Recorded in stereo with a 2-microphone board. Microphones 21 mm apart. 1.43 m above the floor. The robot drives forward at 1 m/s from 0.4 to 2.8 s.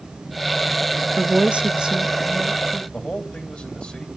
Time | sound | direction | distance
1.2 | a woman speaking | 75° right (ahead or behind) | 1.0 m
2.9 | a man speaking | 50° left (ahead or behind) | 3 m